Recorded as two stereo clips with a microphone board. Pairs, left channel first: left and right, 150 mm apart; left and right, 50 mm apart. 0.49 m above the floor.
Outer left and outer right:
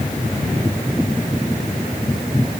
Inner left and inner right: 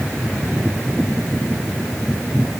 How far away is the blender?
No blender in this recording.